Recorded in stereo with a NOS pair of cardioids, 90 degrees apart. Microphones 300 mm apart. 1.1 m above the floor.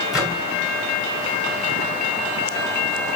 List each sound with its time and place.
0.1 s a microwave: straight ahead, 3 m